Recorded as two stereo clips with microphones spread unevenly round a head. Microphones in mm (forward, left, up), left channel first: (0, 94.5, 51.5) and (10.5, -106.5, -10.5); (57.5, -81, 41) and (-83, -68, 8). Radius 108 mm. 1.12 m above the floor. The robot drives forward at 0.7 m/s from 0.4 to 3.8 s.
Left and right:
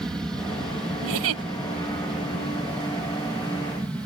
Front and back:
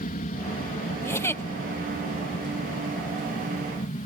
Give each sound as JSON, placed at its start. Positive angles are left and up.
{"t": 0.0, "sound": "an aircraft", "azimuth_deg": -5}
{"t": 1.0, "sound": "a giggle", "azimuth_deg": -75}